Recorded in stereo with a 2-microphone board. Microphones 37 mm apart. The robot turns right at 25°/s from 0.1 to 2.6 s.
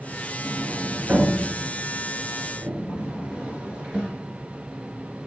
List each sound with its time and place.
0.4 s a sliding door: 75° right (ahead or behind), 2 m; by 4.1 s 25° right (ahead or behind), 2 m